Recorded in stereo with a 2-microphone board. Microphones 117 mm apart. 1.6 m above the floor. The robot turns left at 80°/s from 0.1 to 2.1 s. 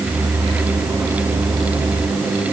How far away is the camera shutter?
I don't hear a camera shutter.